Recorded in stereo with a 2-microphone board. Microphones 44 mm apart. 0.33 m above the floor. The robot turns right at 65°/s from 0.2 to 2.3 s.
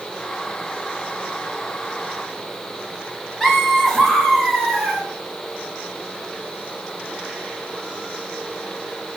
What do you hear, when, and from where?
3.4 s laughter: 15° left (ahead or behind), 1.4 m